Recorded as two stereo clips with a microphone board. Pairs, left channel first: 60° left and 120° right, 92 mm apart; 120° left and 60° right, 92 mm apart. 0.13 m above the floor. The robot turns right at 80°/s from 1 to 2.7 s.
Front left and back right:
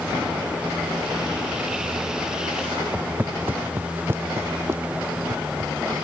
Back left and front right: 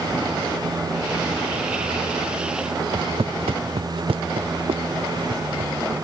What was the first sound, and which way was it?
Footsteps, 45° right.